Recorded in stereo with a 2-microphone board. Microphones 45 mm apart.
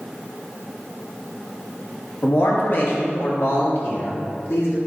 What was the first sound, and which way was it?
A man speaking, 50° left (ahead or behind).